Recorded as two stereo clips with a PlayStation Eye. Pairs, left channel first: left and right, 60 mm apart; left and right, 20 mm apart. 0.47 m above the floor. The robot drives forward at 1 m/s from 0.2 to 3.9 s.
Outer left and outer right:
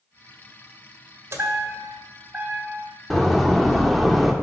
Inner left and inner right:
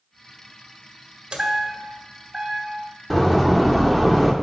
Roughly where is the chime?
Right.